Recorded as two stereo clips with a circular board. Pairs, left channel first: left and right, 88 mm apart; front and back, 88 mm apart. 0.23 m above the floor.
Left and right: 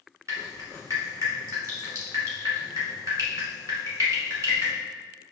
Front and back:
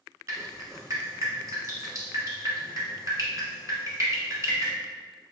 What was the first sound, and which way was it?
Dripping, 135° right.